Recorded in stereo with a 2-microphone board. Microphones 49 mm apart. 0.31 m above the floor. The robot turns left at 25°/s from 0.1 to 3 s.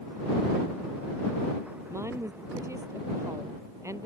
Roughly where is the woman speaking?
Right.